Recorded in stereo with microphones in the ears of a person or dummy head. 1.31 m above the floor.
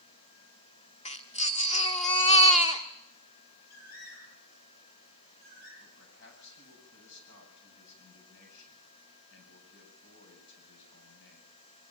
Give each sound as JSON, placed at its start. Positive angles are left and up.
{"t": 1.1, "sound": "a baby crying", "side_deg": 35, "distance_m": 1.4}
{"t": 3.7, "sound": "a bird", "side_deg": 50, "distance_m": 9.0}
{"t": 5.8, "sound": "a man speaking", "side_deg": 60, "distance_m": 8.5}